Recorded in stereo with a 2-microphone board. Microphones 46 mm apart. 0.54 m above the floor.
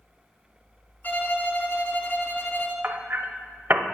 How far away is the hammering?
About 0.7 m.